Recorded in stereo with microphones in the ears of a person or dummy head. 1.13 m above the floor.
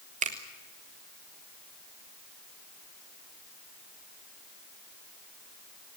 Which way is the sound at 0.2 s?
40° right (ahead or behind).